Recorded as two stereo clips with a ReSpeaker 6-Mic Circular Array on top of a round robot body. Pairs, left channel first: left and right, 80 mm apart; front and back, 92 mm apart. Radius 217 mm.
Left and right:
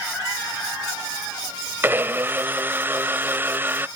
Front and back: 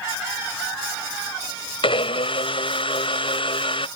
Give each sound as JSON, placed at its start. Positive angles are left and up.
{"t": 1.8, "sound": "a blender", "azimuth_deg": -25}